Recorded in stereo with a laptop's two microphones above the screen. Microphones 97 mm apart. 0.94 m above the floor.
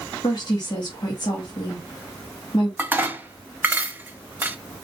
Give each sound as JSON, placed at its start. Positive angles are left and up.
{"t": 0.2, "sound": "a woman speaking", "side_deg": 45, "distance_m": 1.8}
{"t": 2.8, "sound": "dishes clattering", "side_deg": -20, "distance_m": 0.8}